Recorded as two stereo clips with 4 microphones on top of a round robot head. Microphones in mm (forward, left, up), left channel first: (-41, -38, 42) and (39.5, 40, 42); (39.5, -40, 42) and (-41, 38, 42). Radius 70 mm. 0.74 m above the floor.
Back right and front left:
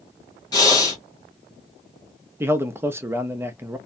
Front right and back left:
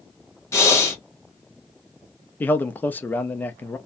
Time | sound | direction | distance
0.5 | breathing | 100° right | 1.3 m
2.4 | a man speaking | 10° left | 0.6 m